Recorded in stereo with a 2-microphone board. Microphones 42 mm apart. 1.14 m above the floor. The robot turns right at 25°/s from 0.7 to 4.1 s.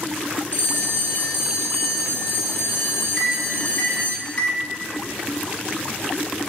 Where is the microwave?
15° left (ahead or behind), 2.5 m; by 4.7 s 35° left (ahead or behind), 2.5 m.